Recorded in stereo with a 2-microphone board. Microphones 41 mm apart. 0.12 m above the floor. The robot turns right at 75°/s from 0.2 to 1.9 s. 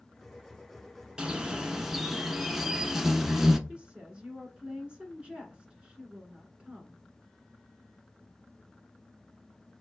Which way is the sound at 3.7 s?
25° right (ahead or behind).